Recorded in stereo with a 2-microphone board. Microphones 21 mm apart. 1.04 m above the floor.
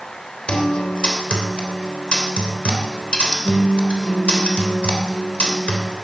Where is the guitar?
55° left (ahead or behind), 3 m.